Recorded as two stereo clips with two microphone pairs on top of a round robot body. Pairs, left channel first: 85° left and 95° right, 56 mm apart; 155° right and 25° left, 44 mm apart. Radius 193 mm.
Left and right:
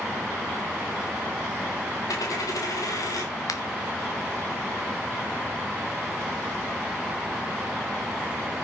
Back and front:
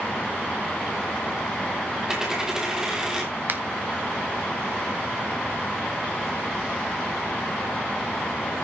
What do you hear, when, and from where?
2.1 s a dropped coin: 110° left, 1.6 m
3.5 s a finger snap: 70° left, 1.8 m